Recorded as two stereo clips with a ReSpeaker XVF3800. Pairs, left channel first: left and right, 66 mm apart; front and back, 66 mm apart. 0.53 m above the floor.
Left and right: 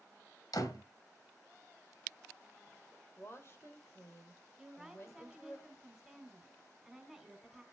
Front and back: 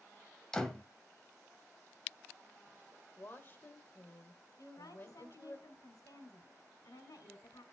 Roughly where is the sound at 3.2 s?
Ahead left.